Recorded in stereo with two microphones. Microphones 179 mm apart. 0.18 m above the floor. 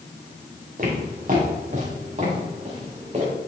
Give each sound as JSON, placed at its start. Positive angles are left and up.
{"t": 0.8, "sound": "footsteps", "side_deg": -50, "distance_m": 4.0}